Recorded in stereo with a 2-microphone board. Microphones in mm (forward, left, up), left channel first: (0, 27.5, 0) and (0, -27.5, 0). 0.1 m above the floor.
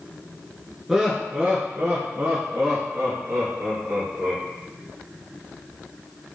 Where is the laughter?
10° right (ahead or behind), 1.1 m; by 4.4 s 50° right (ahead or behind), 3.5 m.